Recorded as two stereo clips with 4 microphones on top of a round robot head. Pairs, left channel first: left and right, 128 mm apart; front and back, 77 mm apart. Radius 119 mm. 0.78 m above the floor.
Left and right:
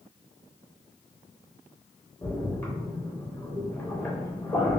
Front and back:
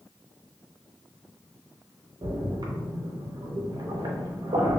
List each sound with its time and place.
2.2 s a splash: 160° left, 0.7 m